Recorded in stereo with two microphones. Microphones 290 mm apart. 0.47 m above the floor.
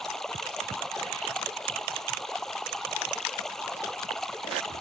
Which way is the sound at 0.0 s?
Centre (ahead or behind).